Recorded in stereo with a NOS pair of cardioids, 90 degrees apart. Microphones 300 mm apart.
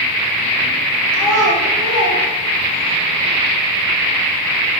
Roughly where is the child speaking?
Ahead right.